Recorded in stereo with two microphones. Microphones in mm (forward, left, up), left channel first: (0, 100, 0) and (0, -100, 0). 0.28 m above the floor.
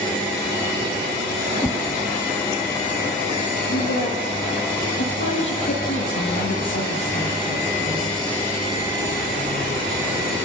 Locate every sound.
1.6 s a whoosh: 15° left (ahead or behind), 2 m
3.7 s a woman speaking: 75° left (ahead or behind), 9.5 m